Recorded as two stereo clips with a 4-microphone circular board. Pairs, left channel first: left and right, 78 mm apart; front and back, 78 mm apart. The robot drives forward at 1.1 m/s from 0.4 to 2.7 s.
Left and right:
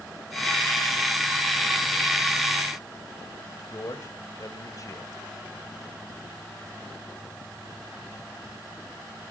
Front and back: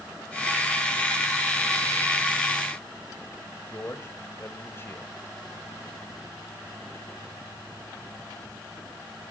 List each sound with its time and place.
3.7 s a man speaking: 55° left, 1.6 m